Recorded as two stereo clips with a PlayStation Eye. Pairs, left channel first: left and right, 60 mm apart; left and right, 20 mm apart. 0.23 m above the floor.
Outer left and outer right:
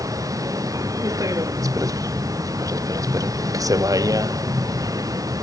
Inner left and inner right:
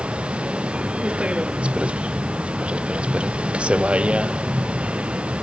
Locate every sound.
0.0 s a vehicle: 65° right (ahead or behind); by 5.4 s 70° right (ahead or behind)